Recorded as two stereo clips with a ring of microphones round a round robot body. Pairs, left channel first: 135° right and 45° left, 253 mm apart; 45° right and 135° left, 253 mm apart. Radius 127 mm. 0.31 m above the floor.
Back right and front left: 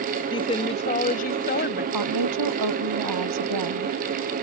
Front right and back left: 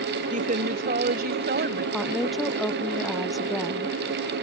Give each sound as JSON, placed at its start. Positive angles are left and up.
{"t": 0.3, "sound": "a woman speaking", "azimuth_deg": 170}
{"t": 1.9, "sound": "a woman speaking", "azimuth_deg": 45}